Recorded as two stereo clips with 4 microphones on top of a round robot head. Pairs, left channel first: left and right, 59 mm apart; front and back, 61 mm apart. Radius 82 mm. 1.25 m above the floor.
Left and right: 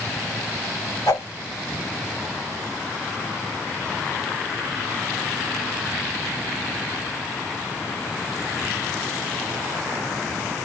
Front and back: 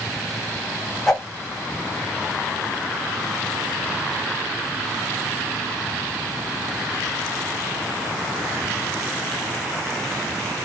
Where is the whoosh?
85° left, 1.0 m.